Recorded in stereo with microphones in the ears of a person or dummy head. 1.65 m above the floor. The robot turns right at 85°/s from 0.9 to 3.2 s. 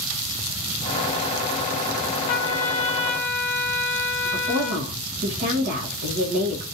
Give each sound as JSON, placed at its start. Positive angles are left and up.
{"t": 2.3, "sound": "a trumpet", "azimuth_deg": 95, "distance_m": 0.7}
{"t": 4.2, "sound": "a woman speaking", "side_deg": -45, "distance_m": 1.0}